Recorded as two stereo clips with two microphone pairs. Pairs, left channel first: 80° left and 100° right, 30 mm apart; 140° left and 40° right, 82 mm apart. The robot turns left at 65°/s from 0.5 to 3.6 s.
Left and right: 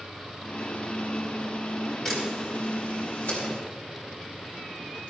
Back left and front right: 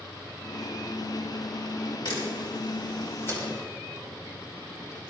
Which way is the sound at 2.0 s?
160° left.